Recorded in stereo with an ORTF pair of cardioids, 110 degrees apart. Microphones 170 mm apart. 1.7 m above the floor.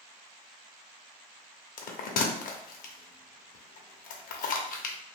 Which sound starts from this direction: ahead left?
A bell, at 1.8 s.